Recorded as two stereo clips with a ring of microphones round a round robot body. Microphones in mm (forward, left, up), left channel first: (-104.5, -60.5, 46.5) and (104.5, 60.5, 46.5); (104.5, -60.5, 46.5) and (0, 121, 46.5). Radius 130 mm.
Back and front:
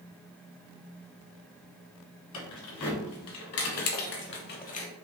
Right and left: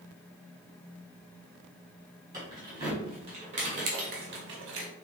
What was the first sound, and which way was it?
Keys jangling, 165° right.